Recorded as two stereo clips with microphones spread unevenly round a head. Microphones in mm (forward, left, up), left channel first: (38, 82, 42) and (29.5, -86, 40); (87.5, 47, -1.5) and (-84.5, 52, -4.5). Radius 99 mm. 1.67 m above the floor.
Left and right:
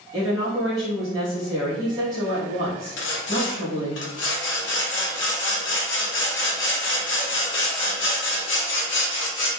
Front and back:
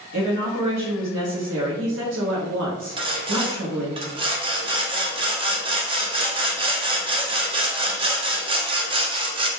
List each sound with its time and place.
0.1 s a woman speaking: 165° right, 0.7 m
3.0 s sawing: 115° left, 0.6 m